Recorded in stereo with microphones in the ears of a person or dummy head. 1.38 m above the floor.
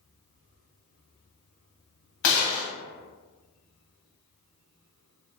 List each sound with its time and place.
2.2 s a gunshot: 65° left (ahead or behind), 1.0 m